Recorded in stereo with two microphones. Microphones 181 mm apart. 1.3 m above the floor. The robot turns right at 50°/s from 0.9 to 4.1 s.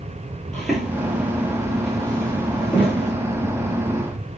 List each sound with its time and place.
0.5 s footsteps: 5° left (ahead or behind), 1.4 m; by 3.1 s 40° left (ahead or behind), 2.5 m